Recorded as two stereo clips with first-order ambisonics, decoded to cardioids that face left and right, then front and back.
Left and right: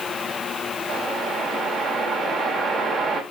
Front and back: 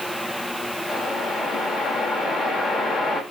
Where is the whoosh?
25° right, 0.9 m.